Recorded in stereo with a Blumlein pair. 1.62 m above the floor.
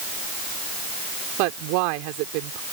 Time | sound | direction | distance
1.4 | a woman speaking | 45° right | ?